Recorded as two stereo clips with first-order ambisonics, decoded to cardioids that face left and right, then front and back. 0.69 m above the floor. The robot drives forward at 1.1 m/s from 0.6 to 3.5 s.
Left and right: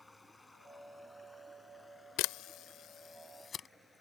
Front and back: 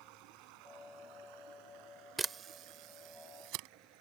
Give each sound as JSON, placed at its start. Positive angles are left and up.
{"t": 0.0, "sound": "running water", "azimuth_deg": 175}
{"t": 2.2, "sound": "a camera shutter", "azimuth_deg": 100}